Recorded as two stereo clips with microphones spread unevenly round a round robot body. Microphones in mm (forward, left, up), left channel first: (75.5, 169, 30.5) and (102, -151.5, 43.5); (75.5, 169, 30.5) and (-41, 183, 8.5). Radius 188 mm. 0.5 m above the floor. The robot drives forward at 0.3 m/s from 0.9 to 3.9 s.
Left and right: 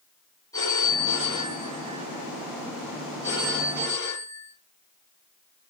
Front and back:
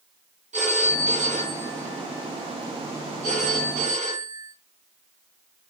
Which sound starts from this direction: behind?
A phone ringing, at 0.5 s.